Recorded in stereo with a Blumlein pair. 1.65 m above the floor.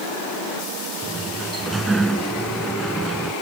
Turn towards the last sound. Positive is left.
turn(degrees=-10)